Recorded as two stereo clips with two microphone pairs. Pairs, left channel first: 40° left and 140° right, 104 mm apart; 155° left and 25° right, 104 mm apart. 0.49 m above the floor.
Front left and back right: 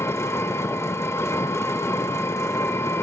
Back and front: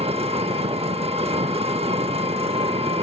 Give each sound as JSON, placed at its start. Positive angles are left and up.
{"t": 0.0, "sound": "an engine running", "azimuth_deg": -20, "distance_m": 0.7}